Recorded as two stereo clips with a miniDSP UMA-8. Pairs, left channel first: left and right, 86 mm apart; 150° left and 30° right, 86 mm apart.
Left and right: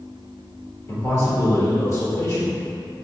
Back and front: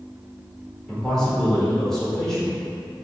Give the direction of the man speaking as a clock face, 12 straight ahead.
10 o'clock.